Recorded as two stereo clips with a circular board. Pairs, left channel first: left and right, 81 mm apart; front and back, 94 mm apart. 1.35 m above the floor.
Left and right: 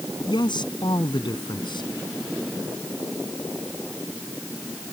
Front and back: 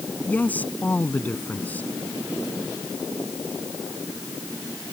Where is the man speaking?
75° left.